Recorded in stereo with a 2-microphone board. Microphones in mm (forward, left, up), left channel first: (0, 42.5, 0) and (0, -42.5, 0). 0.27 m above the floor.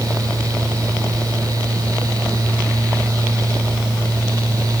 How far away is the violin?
No violin in this recording.